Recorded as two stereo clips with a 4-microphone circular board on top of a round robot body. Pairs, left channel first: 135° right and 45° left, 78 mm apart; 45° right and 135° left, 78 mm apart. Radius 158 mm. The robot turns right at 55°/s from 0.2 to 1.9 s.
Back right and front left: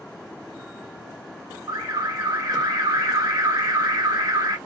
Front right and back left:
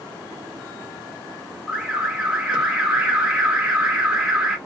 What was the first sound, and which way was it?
An alarm, 45° left.